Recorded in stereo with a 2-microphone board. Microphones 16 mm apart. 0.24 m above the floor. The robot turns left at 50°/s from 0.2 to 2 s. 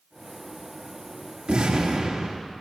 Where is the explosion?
70° right (ahead or behind), 5 m.